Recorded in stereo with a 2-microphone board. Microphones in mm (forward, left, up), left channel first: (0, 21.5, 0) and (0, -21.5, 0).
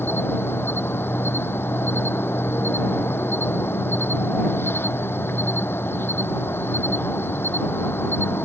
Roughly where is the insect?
Left.